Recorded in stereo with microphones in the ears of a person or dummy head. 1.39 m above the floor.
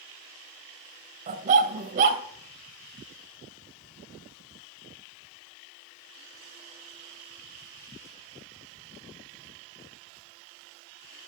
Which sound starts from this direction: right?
A dog barking, at 1.3 s.